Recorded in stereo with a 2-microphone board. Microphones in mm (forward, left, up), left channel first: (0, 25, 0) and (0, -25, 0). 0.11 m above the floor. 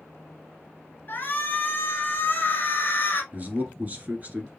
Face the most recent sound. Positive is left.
turn(degrees=-30)  # may be behind; listen again after turning